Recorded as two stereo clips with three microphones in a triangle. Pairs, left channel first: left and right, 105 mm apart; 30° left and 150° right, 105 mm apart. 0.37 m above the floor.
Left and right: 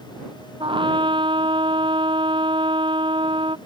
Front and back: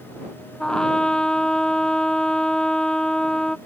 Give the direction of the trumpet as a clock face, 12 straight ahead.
2 o'clock.